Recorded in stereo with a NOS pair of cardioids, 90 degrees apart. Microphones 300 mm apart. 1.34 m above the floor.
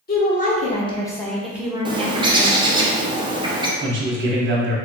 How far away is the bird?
About 0.7 m.